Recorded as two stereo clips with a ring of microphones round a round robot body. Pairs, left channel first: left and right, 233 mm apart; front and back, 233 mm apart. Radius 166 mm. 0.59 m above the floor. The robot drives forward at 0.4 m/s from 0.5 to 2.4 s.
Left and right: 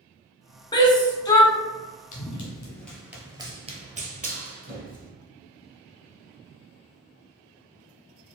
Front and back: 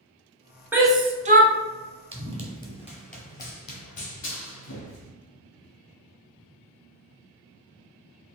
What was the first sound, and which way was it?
A shout, 110° left.